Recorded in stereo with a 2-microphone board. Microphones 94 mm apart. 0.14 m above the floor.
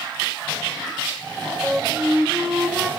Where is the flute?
10° right (ahead or behind), 1.0 m.